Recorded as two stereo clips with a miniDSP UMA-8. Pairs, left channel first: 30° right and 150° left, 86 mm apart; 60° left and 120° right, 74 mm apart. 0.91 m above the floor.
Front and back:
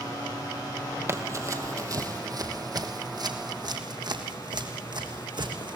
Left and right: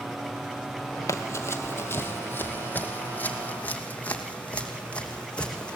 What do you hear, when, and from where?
1.1 s running footsteps: 100° left, 1.6 m; by 5.8 s 135° left, 3.5 m